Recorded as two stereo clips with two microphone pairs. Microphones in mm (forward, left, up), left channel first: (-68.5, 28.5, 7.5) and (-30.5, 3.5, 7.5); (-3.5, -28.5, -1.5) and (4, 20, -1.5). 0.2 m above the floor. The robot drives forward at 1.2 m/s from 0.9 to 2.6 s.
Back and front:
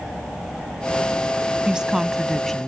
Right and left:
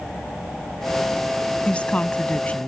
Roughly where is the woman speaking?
Right.